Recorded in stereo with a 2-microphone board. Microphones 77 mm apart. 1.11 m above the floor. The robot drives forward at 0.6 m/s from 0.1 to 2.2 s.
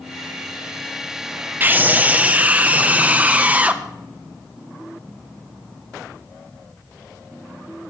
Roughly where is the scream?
Right.